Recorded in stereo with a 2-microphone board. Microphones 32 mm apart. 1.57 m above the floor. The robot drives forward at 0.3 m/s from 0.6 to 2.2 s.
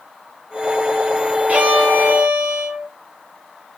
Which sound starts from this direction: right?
A violin, at 1.5 s.